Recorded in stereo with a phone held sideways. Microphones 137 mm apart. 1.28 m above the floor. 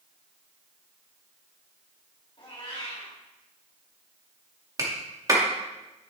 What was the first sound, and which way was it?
A cat meowing, 40° left (ahead or behind).